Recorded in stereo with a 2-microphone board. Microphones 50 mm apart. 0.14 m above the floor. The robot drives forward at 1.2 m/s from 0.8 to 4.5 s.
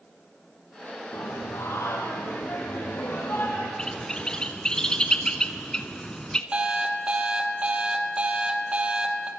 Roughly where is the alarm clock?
Right.